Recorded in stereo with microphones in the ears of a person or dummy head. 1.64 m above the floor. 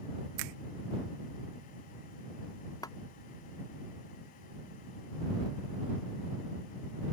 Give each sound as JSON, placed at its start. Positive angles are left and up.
{"t": 0.4, "sound": "a finger snap", "side_deg": -75}
{"t": 2.8, "sound": "a clap", "side_deg": 15}